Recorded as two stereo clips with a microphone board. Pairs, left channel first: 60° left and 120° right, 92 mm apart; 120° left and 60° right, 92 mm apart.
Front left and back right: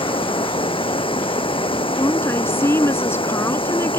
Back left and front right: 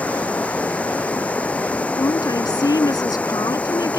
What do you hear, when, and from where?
0.0 s running water: 45° left
1.9 s a woman speaking: 110° left